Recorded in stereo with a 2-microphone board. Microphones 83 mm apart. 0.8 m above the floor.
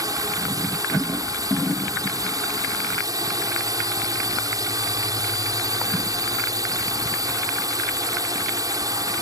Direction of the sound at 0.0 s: 50° right (ahead or behind).